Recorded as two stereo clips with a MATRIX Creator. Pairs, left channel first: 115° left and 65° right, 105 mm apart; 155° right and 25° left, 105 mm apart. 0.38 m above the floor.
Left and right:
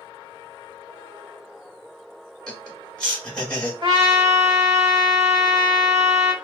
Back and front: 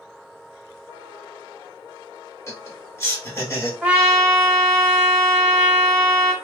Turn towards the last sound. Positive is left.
turn(degrees=-60)